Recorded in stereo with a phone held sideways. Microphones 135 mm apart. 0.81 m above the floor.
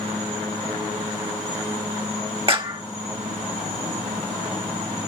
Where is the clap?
40° right (ahead or behind), 1.8 m.